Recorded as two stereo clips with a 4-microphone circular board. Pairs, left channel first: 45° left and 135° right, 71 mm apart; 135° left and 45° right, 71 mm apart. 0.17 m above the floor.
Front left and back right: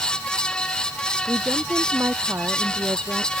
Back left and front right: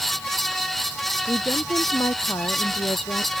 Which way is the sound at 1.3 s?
175° left.